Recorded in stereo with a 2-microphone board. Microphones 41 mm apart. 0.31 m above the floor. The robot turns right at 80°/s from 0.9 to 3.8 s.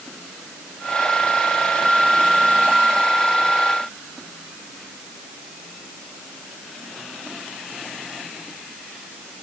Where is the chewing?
I don't hear chewing.